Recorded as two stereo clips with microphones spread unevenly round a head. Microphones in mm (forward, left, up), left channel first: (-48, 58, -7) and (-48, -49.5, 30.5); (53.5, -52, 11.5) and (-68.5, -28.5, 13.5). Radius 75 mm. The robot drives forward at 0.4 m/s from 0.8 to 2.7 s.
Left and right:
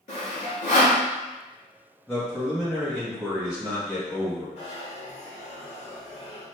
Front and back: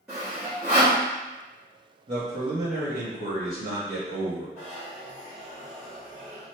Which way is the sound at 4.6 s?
100° left.